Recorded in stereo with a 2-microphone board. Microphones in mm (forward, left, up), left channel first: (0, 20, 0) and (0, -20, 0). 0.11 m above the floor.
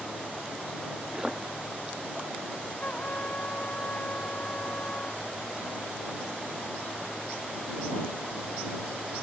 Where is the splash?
15° right (ahead or behind).